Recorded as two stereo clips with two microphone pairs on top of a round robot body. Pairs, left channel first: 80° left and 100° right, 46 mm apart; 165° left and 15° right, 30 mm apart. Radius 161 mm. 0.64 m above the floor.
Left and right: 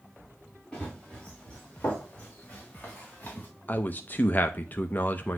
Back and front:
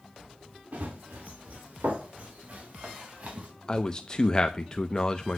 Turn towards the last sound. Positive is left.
turn(degrees=95)